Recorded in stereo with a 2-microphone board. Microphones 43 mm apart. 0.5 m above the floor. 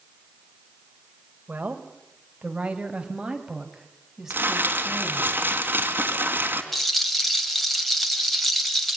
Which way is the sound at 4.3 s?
50° right (ahead or behind).